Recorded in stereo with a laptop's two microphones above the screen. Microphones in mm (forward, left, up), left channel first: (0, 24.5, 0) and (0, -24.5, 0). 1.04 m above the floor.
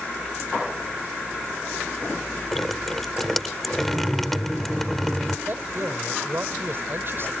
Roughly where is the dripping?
Centre.